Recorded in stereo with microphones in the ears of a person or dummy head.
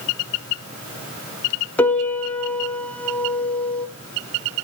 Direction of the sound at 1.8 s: 5° left (ahead or behind).